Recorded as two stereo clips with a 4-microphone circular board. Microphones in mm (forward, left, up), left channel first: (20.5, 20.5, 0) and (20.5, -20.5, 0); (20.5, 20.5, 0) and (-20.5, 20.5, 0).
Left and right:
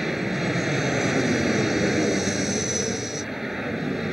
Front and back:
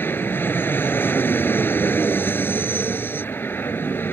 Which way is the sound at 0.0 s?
10° right.